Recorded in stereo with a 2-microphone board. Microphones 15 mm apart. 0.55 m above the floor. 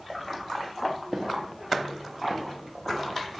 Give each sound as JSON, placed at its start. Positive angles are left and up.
{"t": 1.1, "sound": "footsteps", "side_deg": -40, "distance_m": 1.0}